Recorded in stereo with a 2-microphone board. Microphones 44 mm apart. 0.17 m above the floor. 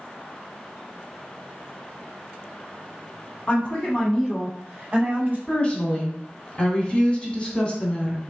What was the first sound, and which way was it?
A woman speaking, 35° left (ahead or behind).